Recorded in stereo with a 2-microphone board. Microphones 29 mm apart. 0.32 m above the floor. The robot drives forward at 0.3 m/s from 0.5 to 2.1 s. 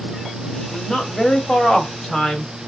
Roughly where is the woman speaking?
Left.